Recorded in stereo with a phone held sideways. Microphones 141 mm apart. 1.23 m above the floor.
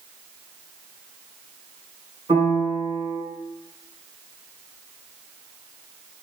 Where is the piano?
40° right (ahead or behind), 1.6 m.